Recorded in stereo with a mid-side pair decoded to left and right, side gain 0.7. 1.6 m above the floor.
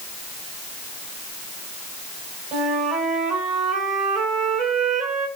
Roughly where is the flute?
Ahead right.